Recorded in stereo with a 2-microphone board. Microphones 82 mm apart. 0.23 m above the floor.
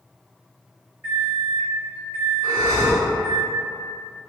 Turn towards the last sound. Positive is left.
turn(degrees=30)  # may be behind; listen again after turning